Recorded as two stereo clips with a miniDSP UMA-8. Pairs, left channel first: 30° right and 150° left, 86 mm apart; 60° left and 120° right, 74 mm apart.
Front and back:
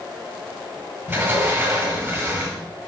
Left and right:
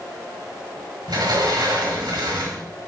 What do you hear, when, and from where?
1.1 s a sliding door: 150° right, 2.5 m